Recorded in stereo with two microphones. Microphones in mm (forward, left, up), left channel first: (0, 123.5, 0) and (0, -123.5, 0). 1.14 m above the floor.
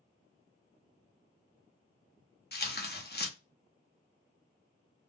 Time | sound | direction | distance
2.5 | tearing paper | 40° left (ahead or behind) | 0.7 m